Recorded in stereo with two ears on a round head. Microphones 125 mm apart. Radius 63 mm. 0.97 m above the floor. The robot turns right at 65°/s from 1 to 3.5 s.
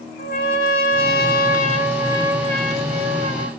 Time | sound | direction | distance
0.2 | a trumpet | 75° left | 4 m